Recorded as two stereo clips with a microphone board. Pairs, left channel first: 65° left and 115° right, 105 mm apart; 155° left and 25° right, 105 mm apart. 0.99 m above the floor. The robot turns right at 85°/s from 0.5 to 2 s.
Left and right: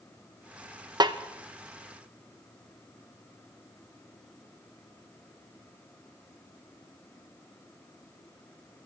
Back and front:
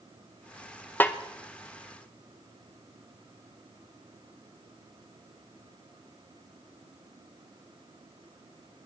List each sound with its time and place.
1.0 s a snare drum: 140° right, 0.9 m; by 1.2 s 125° right, 0.9 m